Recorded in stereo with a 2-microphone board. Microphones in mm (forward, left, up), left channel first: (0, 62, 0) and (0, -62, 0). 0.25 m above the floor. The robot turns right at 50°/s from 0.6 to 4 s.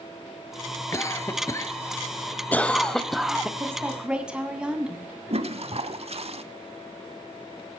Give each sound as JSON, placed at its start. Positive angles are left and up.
{"t": 0.9, "sound": "a cough", "side_deg": 25, "distance_m": 1.0}
{"t": 3.6, "sound": "a woman speaking", "side_deg": -25, "distance_m": 2.5}
{"t": 5.3, "sound": "a toilet flushing", "side_deg": -55, "distance_m": 0.8}